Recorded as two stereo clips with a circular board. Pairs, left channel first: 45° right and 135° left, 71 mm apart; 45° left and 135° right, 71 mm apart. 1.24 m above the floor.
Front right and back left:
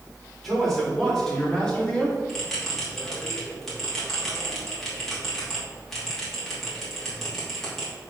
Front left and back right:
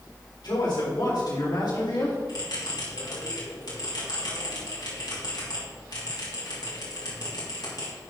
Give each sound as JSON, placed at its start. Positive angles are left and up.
{"t": 0.4, "sound": "a man speaking", "azimuth_deg": 40, "distance_m": 4.0}
{"t": 2.3, "sound": "a bell", "azimuth_deg": 40, "distance_m": 3.0}